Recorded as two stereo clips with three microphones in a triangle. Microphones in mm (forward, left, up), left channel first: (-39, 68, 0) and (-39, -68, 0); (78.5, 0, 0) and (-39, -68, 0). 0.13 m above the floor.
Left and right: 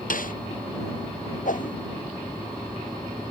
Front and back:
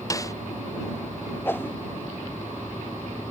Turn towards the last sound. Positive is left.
turn(degrees=105)